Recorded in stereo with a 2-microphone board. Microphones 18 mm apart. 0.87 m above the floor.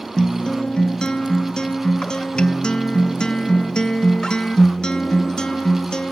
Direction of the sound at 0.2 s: 50° left (ahead or behind).